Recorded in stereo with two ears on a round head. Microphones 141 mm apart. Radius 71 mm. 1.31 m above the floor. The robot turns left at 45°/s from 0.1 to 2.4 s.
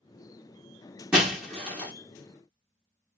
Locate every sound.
1.1 s breaking glass: 5° right (ahead or behind), 1.0 m; by 1.9 s 15° left (ahead or behind), 1.0 m